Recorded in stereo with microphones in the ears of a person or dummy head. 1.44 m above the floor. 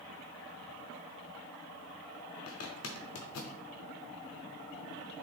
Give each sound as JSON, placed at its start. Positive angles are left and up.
{"t": 2.5, "sound": "a zipper", "side_deg": 65, "distance_m": 0.6}